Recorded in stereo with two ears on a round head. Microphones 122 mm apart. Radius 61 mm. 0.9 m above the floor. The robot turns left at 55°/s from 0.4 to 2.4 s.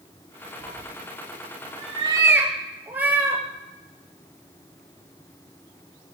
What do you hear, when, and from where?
0.6 s a cat meowing: 65° right (ahead or behind), 2.5 m; by 3.4 s 10° right (ahead or behind), 2.5 m